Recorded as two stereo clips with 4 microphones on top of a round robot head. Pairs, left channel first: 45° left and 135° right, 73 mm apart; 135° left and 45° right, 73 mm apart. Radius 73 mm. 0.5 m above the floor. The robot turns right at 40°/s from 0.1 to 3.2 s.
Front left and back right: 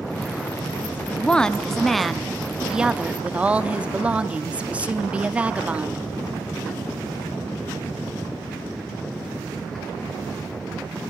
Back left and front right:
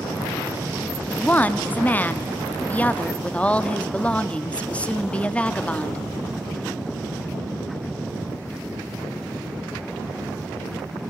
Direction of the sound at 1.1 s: 95° left.